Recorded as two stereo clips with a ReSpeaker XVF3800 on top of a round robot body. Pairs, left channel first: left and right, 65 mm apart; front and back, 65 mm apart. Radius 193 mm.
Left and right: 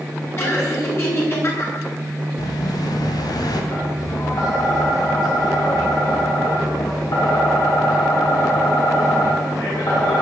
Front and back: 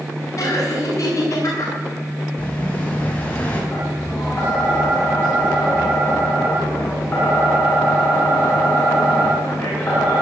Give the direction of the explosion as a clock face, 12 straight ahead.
10 o'clock.